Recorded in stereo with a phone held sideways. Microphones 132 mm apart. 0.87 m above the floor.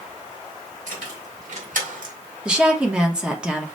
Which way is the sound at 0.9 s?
65° right (ahead or behind).